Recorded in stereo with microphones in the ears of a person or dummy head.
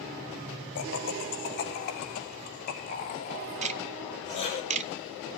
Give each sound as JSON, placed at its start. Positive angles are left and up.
{"t": 0.8, "sound": "laughter", "side_deg": 70, "distance_m": 3.5}
{"t": 3.6, "sound": "ticking", "side_deg": -40, "distance_m": 0.7}